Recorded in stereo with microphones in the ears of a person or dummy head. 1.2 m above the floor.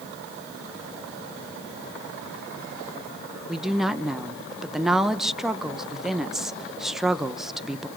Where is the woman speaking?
Centre (ahead or behind), 0.9 m.